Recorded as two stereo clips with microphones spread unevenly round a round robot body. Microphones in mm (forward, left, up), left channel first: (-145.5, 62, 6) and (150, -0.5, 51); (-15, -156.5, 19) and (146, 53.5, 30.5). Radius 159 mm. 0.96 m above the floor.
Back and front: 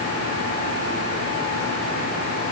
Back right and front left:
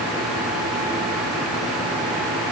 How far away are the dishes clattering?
I don't hear dishes clattering.